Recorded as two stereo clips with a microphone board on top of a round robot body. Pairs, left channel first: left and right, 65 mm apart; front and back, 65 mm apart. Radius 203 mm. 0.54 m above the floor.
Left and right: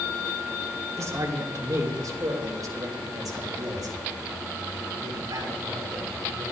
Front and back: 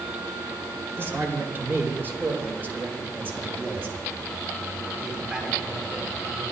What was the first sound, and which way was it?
A man speaking, 130° right.